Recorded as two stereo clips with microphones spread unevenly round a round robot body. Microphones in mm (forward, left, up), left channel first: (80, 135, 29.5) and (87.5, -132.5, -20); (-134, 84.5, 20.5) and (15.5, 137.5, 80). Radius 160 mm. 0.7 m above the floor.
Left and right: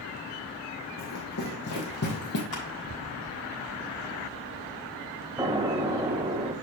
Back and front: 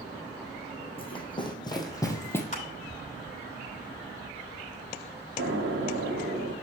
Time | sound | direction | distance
1.0 | running footsteps | 135° left | 2.5 m
2.5 | crushing | 160° left | 4.5 m
5.4 | an explosion | 15° right | 0.9 m